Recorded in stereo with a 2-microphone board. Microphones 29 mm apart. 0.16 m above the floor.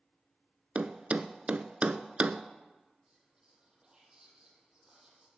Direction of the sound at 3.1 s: 30° right (ahead or behind).